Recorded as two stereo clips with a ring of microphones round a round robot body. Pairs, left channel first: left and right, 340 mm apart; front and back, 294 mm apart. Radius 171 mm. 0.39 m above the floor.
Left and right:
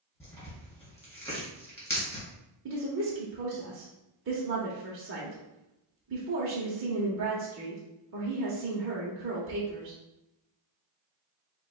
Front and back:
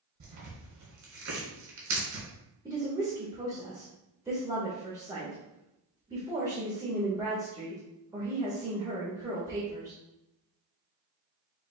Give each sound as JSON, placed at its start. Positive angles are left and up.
{"t": 0.2, "sound": "tearing paper", "azimuth_deg": 170, "distance_m": 2.0}
{"t": 2.6, "sound": "a woman speaking", "azimuth_deg": -110, "distance_m": 0.9}